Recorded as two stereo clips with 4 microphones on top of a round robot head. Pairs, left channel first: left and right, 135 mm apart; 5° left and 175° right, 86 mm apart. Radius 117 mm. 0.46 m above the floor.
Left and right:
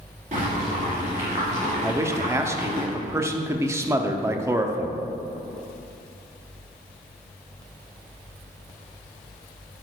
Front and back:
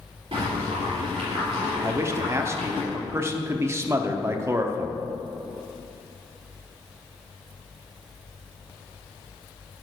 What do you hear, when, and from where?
0.3 s boiling: 135° right, 2.5 m
1.8 s a man speaking: 145° right, 0.9 m